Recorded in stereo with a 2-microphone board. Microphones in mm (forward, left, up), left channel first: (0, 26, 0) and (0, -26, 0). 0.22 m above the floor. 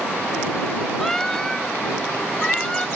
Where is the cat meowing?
5° left (ahead or behind); by 2.9 s 15° left (ahead or behind).